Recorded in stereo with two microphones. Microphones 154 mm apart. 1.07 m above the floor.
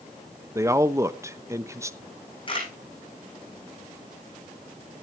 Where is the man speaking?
20° right (ahead or behind), 0.9 m.